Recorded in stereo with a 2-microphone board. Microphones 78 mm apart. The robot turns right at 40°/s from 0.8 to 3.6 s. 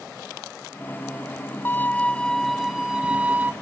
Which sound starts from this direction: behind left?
A violin, at 1.6 s.